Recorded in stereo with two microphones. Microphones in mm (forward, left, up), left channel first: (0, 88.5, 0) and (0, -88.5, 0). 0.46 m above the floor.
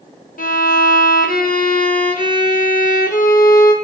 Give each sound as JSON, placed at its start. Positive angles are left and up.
{"t": 0.4, "sound": "a violin", "side_deg": 50, "distance_m": 0.9}